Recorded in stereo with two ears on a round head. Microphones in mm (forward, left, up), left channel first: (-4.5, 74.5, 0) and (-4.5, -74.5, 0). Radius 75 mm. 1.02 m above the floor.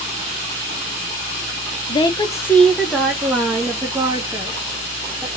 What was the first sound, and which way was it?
A woman speaking, 30° left (ahead or behind).